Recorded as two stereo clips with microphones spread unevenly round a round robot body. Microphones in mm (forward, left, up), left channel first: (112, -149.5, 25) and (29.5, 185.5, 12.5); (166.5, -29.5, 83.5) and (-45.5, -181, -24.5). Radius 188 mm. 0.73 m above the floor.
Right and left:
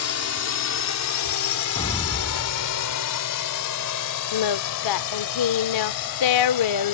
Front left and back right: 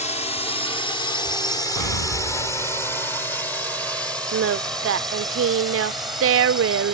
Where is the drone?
40° right; by 6.9 s 60° right.